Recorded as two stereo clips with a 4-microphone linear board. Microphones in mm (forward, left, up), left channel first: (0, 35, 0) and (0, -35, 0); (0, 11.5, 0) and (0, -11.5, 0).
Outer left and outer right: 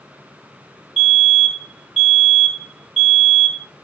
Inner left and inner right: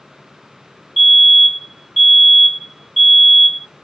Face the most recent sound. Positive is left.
turn(degrees=5)  # may be behind; listen again after turning